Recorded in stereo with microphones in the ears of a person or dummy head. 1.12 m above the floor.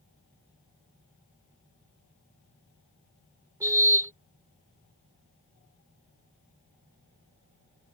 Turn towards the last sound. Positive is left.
turn(degrees=-20)  # may be behind; listen again after turning